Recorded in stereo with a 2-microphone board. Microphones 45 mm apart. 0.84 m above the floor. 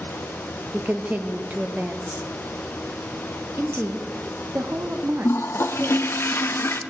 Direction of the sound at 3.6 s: 65° right (ahead or behind).